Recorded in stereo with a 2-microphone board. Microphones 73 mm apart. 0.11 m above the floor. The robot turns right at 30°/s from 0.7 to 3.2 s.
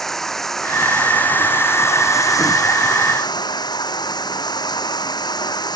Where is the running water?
5° left; by 5.8 s 80° left.